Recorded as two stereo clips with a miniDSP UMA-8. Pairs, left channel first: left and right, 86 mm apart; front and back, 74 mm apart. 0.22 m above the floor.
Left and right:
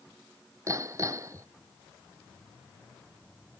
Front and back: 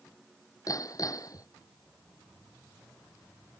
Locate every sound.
0.7 s hammering: 40° right